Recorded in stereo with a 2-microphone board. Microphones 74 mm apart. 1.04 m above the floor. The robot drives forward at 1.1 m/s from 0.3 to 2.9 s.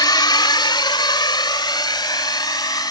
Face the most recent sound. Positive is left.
turn(degrees=60)  # may be behind; listen again after turning